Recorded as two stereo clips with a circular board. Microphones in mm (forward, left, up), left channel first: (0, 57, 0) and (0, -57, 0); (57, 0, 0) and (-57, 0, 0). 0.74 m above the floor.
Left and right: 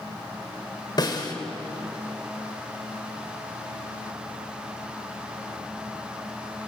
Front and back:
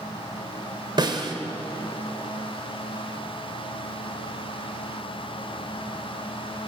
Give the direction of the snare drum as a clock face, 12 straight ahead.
7 o'clock.